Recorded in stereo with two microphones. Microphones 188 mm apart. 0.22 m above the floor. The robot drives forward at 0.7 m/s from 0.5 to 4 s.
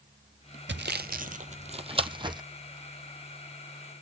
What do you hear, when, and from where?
0.7 s sawing: 80° right, 0.6 m; by 2.4 s 25° right (ahead or behind), 1.4 m